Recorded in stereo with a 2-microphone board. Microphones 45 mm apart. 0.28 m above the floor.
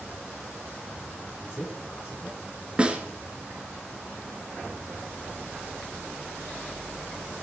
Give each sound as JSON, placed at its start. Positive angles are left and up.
{"t": 1.4, "sound": "a man speaking", "side_deg": 60, "distance_m": 5.0}
{"t": 2.8, "sound": "a snare drum", "side_deg": -20, "distance_m": 2.5}